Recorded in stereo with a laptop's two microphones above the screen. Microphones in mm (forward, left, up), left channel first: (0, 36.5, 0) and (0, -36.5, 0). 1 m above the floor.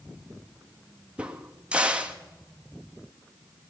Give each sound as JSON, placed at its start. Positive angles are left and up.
{"t": 1.2, "sound": "a crack", "side_deg": -15, "distance_m": 1.6}